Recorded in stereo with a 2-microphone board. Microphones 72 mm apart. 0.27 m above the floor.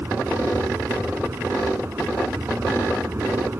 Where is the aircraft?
35° right (ahead or behind).